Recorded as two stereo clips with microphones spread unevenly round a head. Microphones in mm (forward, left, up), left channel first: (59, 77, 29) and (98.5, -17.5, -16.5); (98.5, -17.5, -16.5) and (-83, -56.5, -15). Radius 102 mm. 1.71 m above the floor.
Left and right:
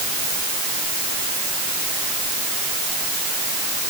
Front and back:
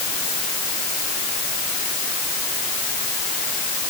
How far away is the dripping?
I don't hear dripping.